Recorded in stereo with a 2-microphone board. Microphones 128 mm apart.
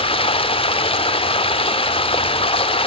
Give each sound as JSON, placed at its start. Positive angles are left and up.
{"t": 0.0, "sound": "running water", "side_deg": 45, "distance_m": 1.0}